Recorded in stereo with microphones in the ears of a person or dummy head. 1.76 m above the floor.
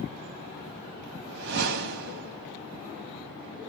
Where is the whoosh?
60° right (ahead or behind), 0.7 m.